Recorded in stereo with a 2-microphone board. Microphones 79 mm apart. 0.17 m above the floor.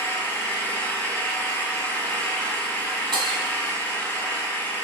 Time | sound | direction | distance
0.0 | an engine running | 25° left (ahead or behind) | 0.7 m
3.1 | breaking glass | 80° right | 0.8 m